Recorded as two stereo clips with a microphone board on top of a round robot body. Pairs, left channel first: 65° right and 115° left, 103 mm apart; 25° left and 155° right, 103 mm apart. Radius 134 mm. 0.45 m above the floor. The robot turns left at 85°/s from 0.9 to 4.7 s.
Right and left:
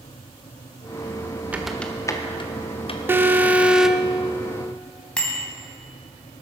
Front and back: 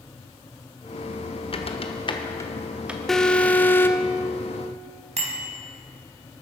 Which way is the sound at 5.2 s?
150° right.